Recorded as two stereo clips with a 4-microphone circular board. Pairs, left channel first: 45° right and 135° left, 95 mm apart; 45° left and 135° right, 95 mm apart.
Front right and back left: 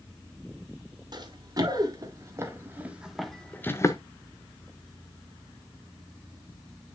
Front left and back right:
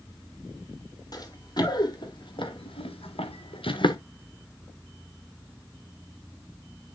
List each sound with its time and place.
1.1 s running footsteps: 90° left, 4 m; by 4.0 s 5° left, 1.6 m